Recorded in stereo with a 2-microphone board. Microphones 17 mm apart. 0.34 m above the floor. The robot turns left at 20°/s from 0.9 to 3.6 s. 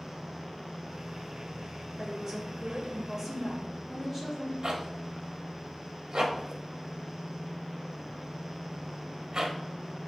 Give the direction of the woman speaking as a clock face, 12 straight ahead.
4 o'clock.